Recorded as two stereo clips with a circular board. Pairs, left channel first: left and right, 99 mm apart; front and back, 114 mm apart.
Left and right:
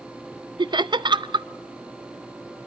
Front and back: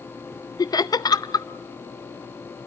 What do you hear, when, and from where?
0.6 s laughter: 55° right, 0.5 m